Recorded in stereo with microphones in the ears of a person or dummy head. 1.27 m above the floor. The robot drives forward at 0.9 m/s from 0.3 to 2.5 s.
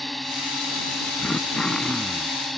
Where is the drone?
Centre (ahead or behind).